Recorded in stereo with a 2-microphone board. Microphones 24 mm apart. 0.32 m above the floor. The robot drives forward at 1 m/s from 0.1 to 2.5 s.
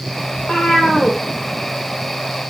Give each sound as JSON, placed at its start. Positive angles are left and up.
{"t": 0.3, "sound": "a cat meowing", "side_deg": 30, "distance_m": 6.0}